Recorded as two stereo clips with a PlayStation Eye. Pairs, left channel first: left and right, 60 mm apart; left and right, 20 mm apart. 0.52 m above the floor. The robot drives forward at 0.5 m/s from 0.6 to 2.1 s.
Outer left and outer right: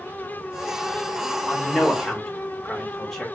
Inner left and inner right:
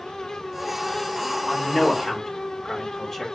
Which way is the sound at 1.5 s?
5° left (ahead or behind).